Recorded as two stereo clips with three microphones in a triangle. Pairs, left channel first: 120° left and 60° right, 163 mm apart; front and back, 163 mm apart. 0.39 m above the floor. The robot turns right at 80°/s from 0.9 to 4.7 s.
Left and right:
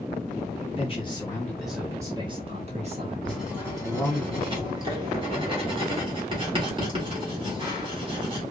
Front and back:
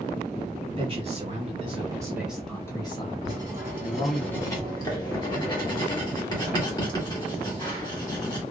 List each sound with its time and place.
0.8 s a man speaking: 150° left, 1.2 m; by 4.2 s 60° left, 1.2 m
3.2 s writing: 155° right, 1.3 m; by 8.4 s 40° right, 1.3 m